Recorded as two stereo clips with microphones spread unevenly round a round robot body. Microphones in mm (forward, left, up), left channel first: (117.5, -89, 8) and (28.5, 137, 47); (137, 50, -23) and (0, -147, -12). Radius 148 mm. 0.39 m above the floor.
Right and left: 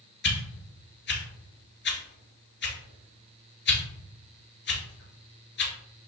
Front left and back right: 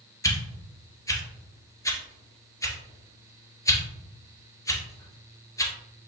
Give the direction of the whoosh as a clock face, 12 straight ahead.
1 o'clock.